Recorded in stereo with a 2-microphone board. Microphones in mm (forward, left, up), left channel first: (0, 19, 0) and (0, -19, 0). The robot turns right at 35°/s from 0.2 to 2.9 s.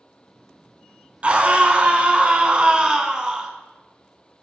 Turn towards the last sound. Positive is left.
turn(degrees=-50)